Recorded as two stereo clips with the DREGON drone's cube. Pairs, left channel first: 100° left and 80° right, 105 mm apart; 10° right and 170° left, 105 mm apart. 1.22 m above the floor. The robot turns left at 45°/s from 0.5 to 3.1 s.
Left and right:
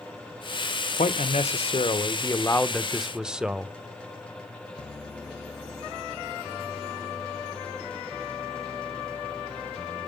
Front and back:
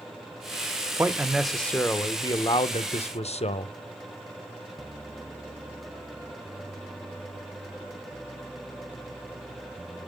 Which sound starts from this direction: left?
A man speaking, at 1.0 s.